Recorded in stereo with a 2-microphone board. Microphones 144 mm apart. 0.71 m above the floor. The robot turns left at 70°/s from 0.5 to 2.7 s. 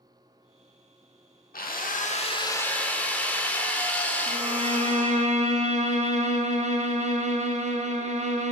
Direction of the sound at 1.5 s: 95° left.